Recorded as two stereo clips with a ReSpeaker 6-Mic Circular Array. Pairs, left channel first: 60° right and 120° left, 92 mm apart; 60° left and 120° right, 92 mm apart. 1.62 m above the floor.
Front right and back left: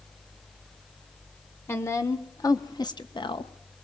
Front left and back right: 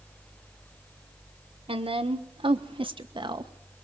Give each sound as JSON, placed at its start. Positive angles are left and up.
{"t": 1.7, "sound": "a woman speaking", "azimuth_deg": -125, "distance_m": 1.5}